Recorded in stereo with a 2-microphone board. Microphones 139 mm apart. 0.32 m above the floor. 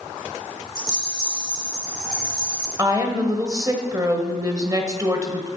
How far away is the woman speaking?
About 1.4 m.